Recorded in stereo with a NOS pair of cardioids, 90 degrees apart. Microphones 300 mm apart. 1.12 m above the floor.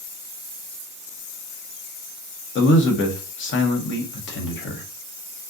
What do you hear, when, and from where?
2.5 s a man speaking: 40° left, 0.9 m